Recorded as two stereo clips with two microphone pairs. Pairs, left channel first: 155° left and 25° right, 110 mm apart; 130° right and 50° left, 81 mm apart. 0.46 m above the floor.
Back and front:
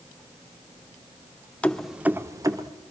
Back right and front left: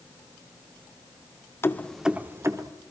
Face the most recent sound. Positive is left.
turn(degrees=20)